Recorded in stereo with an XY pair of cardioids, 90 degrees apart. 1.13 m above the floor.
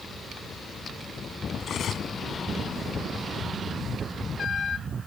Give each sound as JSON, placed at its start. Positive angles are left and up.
{"t": 1.6, "sound": "cutlery clinking", "azimuth_deg": 65}